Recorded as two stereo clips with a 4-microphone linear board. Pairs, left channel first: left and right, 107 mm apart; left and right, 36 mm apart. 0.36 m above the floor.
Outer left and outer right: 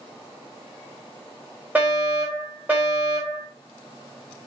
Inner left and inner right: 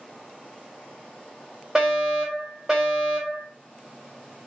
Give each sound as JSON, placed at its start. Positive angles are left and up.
{"t": 1.8, "sound": "a fire alarm", "side_deg": -15, "distance_m": 2.0}